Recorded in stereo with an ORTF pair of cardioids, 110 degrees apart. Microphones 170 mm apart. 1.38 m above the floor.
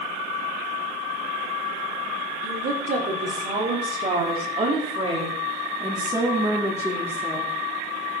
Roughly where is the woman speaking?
Ahead right.